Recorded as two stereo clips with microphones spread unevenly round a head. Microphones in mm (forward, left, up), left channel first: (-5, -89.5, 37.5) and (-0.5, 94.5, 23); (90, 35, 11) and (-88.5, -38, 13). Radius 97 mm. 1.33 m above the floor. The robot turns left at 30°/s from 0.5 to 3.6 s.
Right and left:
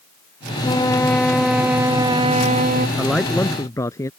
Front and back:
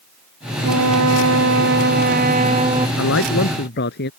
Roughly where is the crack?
No crack in this recording.